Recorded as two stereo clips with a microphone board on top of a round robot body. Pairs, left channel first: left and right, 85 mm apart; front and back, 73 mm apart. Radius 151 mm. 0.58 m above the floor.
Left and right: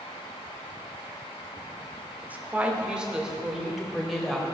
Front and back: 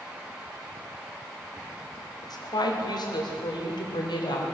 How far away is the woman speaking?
About 2 m.